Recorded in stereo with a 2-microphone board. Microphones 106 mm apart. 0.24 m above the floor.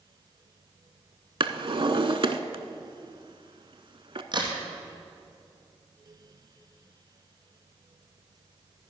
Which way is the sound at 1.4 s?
55° right (ahead or behind).